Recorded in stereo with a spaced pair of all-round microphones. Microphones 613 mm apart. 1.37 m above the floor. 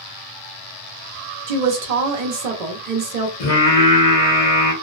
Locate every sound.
1.5 s a woman speaking: 85° right, 0.8 m
3.4 s singing: 65° left (ahead or behind), 1.1 m